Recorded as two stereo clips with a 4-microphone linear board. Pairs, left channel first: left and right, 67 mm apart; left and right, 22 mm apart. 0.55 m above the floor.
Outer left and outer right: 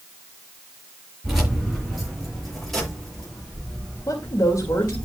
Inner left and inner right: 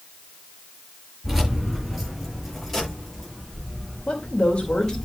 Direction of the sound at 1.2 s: 5° right (ahead or behind).